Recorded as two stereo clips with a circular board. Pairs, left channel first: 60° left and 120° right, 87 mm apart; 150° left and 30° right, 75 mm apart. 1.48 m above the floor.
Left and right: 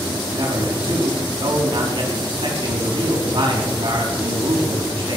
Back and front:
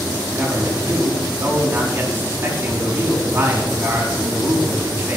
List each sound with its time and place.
0.3 s a man speaking: 95° right, 4 m